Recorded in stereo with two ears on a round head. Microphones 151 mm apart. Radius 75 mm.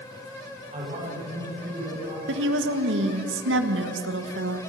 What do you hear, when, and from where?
0.7 s a man speaking: 40° right (ahead or behind), 6.5 m
2.3 s a woman speaking: 75° right (ahead or behind), 1.7 m